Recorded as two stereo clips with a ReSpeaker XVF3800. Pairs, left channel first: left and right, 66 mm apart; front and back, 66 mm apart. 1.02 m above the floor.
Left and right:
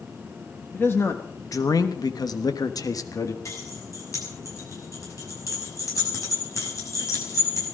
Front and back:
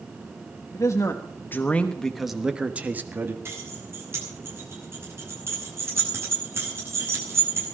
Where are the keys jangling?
130° left, 6 m.